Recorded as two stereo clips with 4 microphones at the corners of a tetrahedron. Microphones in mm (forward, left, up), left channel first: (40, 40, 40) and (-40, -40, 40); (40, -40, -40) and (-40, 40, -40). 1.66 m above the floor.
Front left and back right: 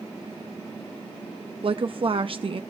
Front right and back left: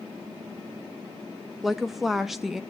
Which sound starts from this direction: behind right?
A woman speaking, at 1.6 s.